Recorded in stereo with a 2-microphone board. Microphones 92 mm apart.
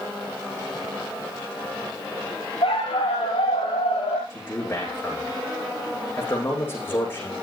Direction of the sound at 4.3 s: 25° left (ahead or behind).